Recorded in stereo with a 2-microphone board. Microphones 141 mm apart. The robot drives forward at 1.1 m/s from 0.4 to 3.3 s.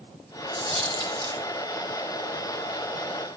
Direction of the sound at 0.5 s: 45° right (ahead or behind).